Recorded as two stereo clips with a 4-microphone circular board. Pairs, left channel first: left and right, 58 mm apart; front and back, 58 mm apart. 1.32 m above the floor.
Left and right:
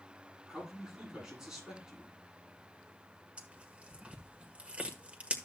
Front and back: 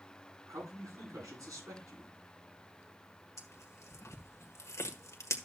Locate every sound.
0.5 s a man speaking: 170° right, 8.5 m
3.4 s tearing paper: 25° right, 1.4 m